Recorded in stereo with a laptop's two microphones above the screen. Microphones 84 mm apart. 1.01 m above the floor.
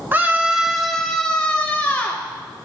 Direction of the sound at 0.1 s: 25° right (ahead or behind).